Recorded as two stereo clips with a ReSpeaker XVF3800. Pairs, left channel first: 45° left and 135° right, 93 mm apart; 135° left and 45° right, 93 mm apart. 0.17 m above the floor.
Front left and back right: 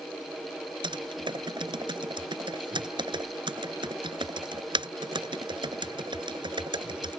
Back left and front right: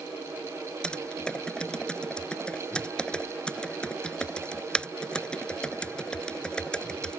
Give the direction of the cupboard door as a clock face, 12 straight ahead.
No cupboard door in this recording.